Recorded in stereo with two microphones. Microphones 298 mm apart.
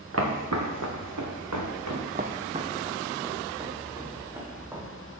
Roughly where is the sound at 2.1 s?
Right.